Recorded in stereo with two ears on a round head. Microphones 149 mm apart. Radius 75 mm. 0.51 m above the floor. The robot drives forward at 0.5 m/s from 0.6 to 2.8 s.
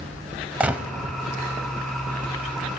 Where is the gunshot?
10° right (ahead or behind), 0.8 m.